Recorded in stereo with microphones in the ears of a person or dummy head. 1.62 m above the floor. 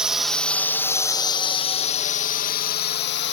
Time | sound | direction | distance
0.0 | a drone | 5° right (ahead or behind) | ?